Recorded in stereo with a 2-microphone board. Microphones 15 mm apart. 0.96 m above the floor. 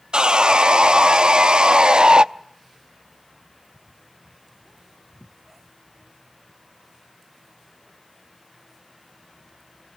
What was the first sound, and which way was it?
Sawing, 70° right (ahead or behind).